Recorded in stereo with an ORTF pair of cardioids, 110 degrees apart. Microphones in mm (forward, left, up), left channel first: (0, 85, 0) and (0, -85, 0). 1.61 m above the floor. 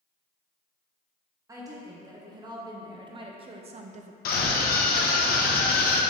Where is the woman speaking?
20° right, 2.0 m; by 4.2 s 50° right, 0.6 m.